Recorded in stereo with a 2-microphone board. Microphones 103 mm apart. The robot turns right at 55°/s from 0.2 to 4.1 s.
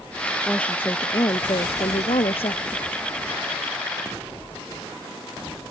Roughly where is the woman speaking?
Ahead.